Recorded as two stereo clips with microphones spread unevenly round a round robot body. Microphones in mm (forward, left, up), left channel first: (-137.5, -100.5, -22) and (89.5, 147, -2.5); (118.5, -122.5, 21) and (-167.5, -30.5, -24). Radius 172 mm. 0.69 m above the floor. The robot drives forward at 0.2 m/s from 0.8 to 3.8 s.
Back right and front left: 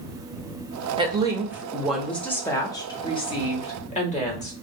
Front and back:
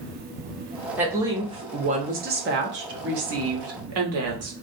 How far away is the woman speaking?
About 0.6 m.